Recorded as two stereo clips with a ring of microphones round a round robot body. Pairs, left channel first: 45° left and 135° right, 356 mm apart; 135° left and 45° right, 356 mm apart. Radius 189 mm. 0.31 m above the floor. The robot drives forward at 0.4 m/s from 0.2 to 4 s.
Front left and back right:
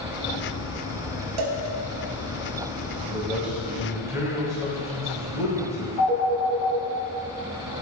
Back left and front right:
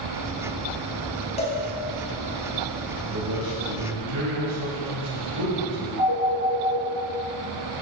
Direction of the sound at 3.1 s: 45° right.